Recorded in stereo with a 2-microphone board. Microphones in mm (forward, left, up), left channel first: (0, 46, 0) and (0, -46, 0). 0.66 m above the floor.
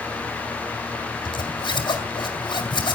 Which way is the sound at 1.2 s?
65° left (ahead or behind).